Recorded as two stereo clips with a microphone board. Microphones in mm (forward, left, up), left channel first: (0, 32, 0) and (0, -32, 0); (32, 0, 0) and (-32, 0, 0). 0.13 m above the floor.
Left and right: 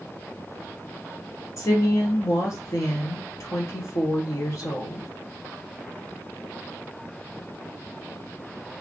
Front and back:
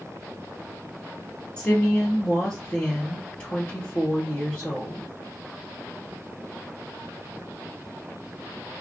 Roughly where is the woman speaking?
Left.